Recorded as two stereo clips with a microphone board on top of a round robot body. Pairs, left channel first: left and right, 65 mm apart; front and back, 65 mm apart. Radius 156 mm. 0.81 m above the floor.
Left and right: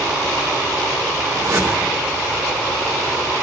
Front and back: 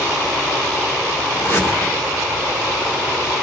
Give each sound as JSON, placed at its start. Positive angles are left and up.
{"t": 1.3, "sound": "a whoosh", "azimuth_deg": -50, "distance_m": 1.8}